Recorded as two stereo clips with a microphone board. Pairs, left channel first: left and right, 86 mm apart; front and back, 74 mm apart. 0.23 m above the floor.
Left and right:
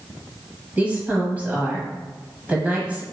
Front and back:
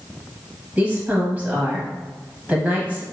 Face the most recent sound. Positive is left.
turn(degrees=-140)